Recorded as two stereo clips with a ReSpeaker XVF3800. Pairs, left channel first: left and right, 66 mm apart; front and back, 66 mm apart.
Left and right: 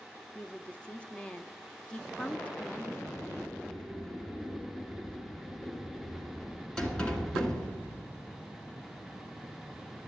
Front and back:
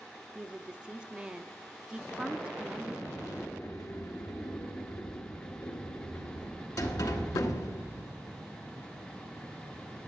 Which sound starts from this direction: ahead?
A sliding door, at 3.1 s.